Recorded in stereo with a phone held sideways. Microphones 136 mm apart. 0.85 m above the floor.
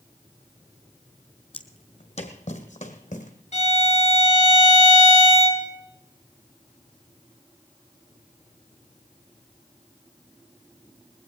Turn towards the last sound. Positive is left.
turn(degrees=55)  # may be behind; listen again after turning